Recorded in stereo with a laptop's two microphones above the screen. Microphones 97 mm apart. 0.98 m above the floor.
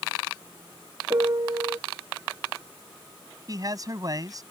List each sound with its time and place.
1.1 s a piano: 50° right (ahead or behind)
3.5 s a man speaking: 40° right (ahead or behind)